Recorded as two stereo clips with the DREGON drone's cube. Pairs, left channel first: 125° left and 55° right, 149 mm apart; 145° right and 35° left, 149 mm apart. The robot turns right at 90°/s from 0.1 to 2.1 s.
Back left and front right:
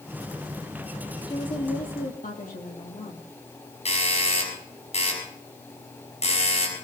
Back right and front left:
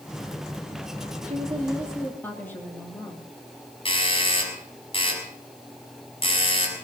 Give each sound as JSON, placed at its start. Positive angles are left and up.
{"t": 1.3, "sound": "a woman speaking", "azimuth_deg": 65, "distance_m": 4.0}
{"t": 3.9, "sound": "a doorbell", "azimuth_deg": 165, "distance_m": 6.0}